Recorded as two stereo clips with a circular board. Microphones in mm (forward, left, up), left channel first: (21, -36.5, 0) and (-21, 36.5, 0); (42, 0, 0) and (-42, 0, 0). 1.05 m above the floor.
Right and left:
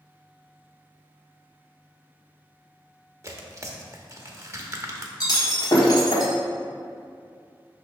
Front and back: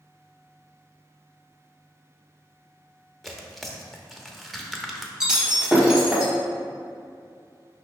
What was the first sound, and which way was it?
Tearing paper, 90° left.